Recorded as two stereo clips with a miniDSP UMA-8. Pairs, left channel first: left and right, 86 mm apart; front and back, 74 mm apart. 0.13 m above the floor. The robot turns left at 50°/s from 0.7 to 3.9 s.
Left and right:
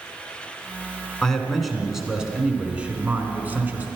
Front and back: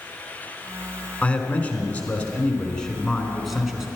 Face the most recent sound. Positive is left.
turn(degrees=-110)